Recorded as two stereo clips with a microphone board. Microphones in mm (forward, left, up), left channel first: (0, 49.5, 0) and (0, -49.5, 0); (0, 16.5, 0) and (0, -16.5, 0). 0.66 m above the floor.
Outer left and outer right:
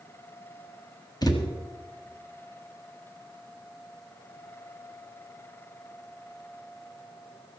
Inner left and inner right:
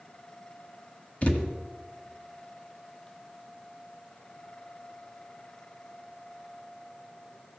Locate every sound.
1.2 s a thud: 40° left (ahead or behind), 1.5 m